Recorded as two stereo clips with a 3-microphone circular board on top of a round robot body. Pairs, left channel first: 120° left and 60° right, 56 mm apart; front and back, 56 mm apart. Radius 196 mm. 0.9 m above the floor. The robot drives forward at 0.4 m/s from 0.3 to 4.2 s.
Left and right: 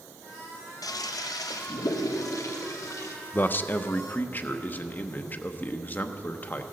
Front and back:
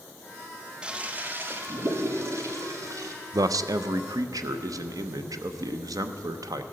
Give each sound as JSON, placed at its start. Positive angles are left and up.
{"t": 0.8, "sound": "a toilet flushing", "azimuth_deg": 105, "distance_m": 0.6}
{"t": 3.3, "sound": "a man speaking", "azimuth_deg": 175, "distance_m": 0.5}